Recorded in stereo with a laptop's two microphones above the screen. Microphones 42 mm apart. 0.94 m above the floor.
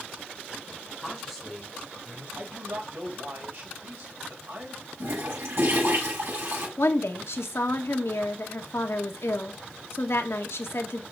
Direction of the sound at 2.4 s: 65° right (ahead or behind).